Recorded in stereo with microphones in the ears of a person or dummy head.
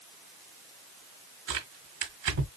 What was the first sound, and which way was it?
Tearing paper, 50° right (ahead or behind).